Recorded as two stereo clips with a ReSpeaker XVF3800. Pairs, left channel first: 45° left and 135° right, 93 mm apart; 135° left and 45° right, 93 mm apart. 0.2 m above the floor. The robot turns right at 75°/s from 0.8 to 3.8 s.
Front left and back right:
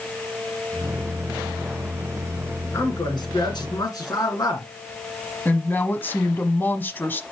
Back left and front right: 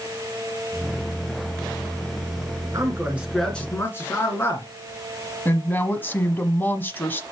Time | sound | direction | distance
2.7 | a man speaking | 5° right | 3 m
5.5 | a woman speaking | 90° left | 1.2 m